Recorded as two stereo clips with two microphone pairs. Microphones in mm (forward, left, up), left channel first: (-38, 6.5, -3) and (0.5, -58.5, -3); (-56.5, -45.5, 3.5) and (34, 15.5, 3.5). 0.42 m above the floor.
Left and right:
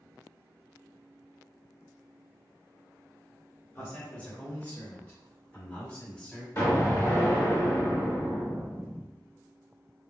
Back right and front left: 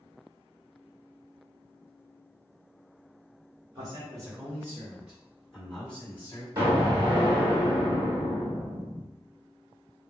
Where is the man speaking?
60° left, 1.4 m; by 6.5 s 165° right, 1.2 m.